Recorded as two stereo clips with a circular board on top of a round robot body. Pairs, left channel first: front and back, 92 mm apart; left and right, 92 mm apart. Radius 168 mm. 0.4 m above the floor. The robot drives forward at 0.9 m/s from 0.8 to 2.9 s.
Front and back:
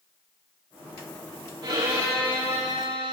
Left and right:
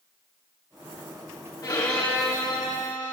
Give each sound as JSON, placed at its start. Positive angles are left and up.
{"t": 1.6, "sound": "a violin", "azimuth_deg": 140, "distance_m": 5.5}